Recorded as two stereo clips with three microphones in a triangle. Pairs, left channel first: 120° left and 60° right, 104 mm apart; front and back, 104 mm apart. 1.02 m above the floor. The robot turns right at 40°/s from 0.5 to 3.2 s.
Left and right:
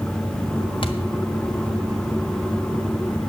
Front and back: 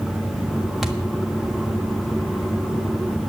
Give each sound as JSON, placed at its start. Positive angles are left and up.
{"t": 0.8, "sound": "a thud", "azimuth_deg": 95, "distance_m": 1.5}